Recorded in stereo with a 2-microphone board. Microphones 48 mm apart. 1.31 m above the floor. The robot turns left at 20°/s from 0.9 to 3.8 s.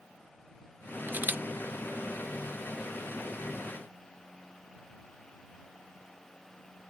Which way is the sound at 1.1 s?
45° right (ahead or behind).